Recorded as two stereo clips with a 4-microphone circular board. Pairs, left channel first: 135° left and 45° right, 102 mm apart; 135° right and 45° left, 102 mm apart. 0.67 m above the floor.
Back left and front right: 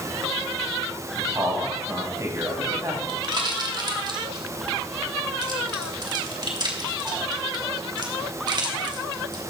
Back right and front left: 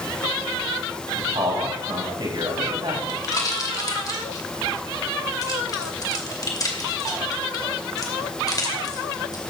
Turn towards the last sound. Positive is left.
turn(degrees=-85)